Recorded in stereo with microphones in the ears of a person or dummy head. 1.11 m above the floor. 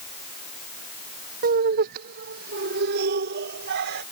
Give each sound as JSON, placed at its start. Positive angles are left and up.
{"t": 1.4, "sound": "laughter", "side_deg": -50}